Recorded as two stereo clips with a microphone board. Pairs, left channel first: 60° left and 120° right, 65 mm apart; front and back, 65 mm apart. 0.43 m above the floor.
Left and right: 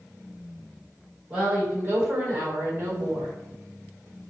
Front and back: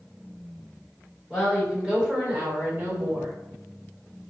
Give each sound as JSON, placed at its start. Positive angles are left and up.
{"t": 1.3, "sound": "a woman speaking", "azimuth_deg": -85, "distance_m": 1.3}